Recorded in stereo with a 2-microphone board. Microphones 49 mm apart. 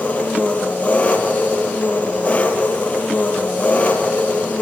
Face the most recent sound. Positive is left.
turn(degrees=30)  # may be behind; listen again after turning